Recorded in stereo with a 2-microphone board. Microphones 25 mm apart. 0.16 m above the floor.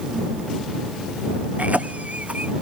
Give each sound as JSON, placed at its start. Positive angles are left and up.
{"t": 1.6, "sound": "a cough", "side_deg": -80}